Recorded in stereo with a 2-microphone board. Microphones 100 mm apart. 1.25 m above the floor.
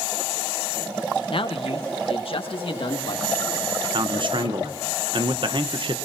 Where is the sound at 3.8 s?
55° right (ahead or behind), 1.1 m.